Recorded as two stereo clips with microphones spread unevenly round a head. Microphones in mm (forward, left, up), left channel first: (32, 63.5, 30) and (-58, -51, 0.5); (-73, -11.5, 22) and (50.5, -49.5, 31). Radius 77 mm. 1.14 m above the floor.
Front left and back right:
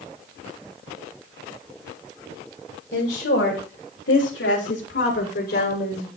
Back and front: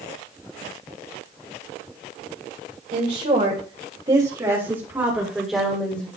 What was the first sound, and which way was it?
A woman speaking, 25° left.